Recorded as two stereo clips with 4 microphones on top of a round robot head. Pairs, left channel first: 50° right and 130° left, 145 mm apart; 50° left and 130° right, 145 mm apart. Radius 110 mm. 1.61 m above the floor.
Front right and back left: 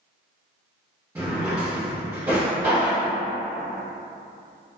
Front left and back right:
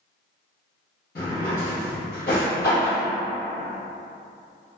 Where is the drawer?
65° left, 0.9 m.